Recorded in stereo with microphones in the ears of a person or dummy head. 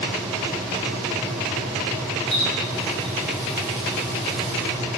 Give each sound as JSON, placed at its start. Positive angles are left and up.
{"t": 2.3, "sound": "a running tap", "side_deg": 30, "distance_m": 6.0}